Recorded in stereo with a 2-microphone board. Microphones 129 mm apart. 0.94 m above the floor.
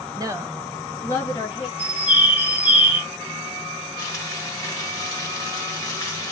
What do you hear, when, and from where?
0.2 s a woman speaking: 30° right (ahead or behind), 0.7 m; by 1.7 s 35° left (ahead or behind), 1.2 m
1.8 s a bird: 10° right (ahead or behind), 1.1 m
4.0 s frying: 25° left (ahead or behind), 1.0 m